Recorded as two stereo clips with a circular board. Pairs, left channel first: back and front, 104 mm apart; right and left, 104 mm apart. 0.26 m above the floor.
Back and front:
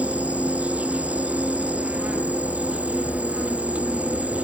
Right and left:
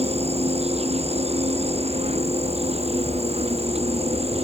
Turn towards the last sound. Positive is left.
turn(degrees=75)